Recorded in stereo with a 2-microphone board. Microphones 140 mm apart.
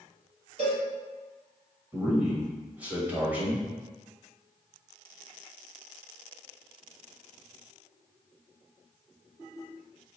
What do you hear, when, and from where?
0.6 s a cowbell: 45° right (ahead or behind), 1.9 m
1.9 s a man speaking: 10° right (ahead or behind), 1.3 m